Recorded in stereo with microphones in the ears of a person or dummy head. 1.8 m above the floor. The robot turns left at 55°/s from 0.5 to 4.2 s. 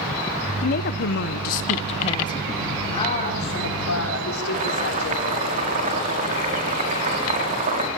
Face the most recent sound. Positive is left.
turn(degrees=-40)  # may be behind; listen again after turning